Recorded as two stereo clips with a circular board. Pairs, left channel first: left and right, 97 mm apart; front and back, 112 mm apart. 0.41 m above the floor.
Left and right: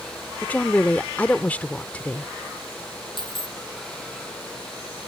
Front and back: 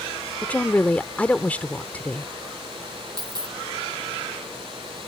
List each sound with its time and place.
0.4 s a woman speaking: 50° left
3.2 s a dropped coin: 125° left